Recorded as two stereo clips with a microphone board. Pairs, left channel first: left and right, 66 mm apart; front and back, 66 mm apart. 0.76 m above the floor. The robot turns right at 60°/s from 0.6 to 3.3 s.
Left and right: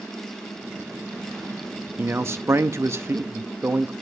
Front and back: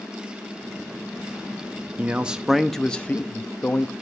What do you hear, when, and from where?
2.0 s a man speaking: 130° right, 0.8 m; by 3.9 s 50° right, 0.8 m